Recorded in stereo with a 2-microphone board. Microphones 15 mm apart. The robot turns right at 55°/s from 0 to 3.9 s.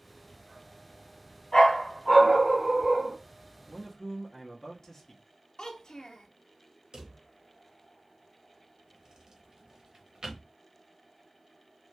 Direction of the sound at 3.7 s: 30° left (ahead or behind).